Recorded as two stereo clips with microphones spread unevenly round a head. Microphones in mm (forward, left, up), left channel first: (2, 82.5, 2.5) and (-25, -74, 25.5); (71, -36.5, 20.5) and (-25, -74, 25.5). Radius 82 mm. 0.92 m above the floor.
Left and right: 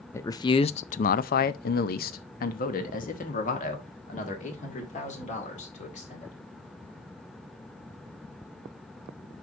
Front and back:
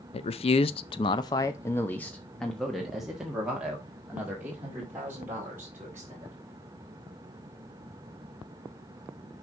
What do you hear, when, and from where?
0.1 s a man speaking: 10° left, 0.7 m; by 6.3 s 125° left, 3 m